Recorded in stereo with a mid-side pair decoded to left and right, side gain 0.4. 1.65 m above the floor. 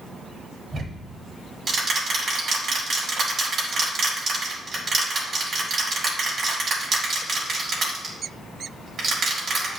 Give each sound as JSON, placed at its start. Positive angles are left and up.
{"t": 0.7, "sound": "ticking", "azimuth_deg": -50, "distance_m": 5.0}